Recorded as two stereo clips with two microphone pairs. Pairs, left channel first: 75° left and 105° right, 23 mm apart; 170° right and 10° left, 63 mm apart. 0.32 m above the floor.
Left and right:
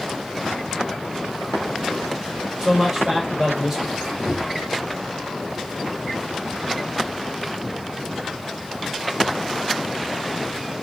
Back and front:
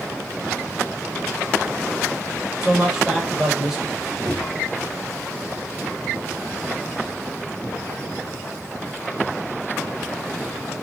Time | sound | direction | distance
2.6 | a man speaking | 60° right | 0.9 m
4.0 | a squeak | 65° right | 1.4 m